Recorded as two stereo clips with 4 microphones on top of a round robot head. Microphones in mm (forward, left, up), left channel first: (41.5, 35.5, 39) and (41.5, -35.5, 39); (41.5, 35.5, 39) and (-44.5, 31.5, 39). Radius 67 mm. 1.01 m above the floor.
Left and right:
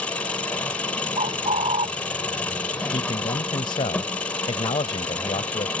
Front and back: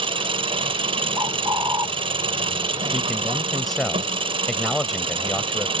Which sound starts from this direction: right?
A bird, at 1.2 s.